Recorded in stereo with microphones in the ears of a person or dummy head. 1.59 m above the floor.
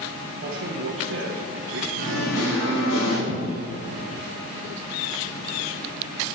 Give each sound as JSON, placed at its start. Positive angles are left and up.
{"t": 0.4, "sound": "a man speaking", "side_deg": -65, "distance_m": 1.2}
{"t": 2.0, "sound": "singing", "side_deg": 80, "distance_m": 4.5}
{"t": 3.3, "sound": "a cupboard door", "side_deg": 65, "distance_m": 2.5}